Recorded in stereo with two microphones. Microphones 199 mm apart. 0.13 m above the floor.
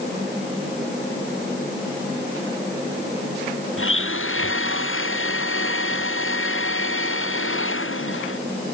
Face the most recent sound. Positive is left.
turn(degrees=75)  # may be behind; listen again after turning